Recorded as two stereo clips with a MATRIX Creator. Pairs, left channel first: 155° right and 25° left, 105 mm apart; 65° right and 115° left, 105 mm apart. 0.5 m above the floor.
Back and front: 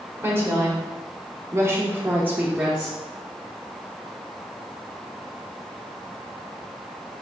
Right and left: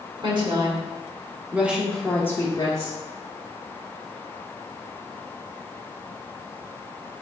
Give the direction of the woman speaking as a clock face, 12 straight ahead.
9 o'clock.